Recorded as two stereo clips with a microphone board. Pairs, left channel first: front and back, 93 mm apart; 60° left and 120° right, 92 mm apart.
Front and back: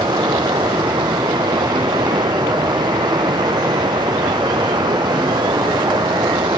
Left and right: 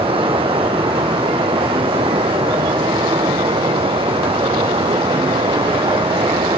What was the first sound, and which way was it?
Running water, 135° right.